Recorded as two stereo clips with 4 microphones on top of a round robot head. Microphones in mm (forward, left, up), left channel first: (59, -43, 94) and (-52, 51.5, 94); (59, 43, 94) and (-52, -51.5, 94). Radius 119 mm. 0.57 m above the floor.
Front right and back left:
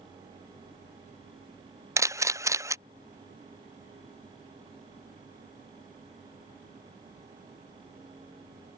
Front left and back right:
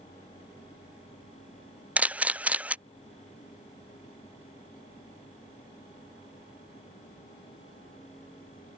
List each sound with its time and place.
2.0 s a camera shutter: 155° left